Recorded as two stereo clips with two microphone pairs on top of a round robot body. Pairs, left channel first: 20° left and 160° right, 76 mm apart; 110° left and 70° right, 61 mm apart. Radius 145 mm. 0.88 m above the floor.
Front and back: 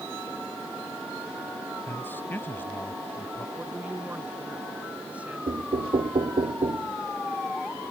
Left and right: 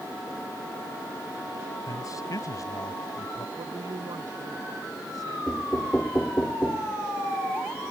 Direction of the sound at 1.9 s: 85° left.